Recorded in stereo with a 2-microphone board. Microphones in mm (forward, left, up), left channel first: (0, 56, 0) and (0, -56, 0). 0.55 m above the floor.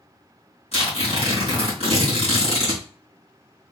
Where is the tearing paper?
70° left (ahead or behind), 2.5 m.